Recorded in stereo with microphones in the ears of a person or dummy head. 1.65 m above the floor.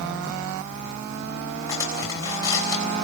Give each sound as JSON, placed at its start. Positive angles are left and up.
{"t": 1.7, "sound": "cutlery clinking", "side_deg": 15, "distance_m": 4.5}